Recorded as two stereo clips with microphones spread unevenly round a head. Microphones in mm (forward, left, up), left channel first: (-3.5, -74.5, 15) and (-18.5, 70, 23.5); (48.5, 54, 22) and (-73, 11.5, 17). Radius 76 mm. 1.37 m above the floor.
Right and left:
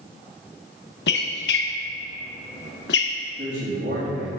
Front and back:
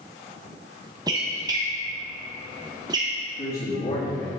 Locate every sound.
1.1 s a squeak: 95° right, 0.9 m
3.4 s a man speaking: 55° left, 2.5 m